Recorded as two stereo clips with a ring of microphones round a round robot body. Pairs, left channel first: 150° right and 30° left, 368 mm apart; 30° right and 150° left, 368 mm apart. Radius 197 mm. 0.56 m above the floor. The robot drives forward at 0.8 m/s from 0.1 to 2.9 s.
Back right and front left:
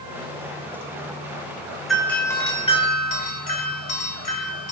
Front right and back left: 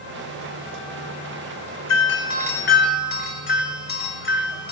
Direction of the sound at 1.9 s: 60° right.